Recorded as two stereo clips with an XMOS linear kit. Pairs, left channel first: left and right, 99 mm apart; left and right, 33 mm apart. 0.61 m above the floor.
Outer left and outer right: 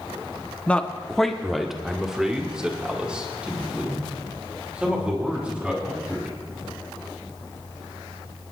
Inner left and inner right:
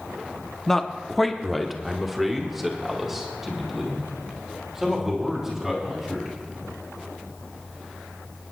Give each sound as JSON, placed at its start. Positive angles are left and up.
{"t": 0.7, "sound": "a man speaking", "side_deg": 15, "distance_m": 0.8}